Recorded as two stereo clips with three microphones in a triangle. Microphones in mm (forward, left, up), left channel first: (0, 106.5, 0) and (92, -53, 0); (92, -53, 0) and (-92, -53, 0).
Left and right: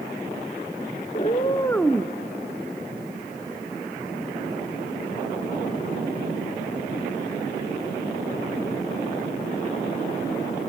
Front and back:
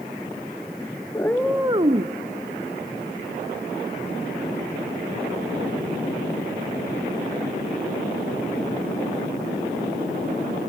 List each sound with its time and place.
1.1 s a cat meowing: 70° left, 0.9 m; by 2.1 s 140° right, 0.9 m